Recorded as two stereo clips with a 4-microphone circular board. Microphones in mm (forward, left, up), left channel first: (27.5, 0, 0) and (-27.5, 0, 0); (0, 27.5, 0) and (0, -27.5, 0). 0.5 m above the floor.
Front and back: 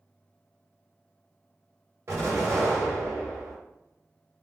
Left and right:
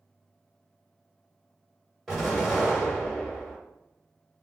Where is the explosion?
175° left, 1.9 m.